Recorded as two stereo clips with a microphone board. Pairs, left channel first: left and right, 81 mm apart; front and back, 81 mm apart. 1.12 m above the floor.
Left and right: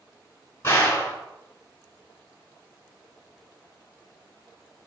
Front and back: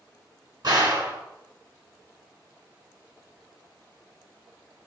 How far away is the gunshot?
About 4 m.